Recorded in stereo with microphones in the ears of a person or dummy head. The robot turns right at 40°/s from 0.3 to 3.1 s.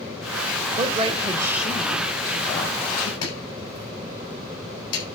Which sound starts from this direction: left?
Chopping, at 3.2 s.